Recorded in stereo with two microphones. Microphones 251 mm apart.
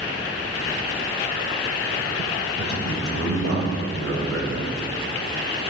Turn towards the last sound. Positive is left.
turn(degrees=-60)  # may be behind; listen again after turning